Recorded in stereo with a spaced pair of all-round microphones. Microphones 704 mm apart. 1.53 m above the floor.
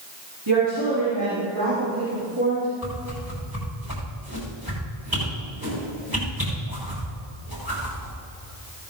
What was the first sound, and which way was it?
A woman speaking, 35° right (ahead or behind).